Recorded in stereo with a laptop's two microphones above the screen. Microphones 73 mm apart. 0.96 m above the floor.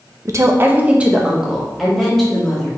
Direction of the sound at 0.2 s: 45° right (ahead or behind).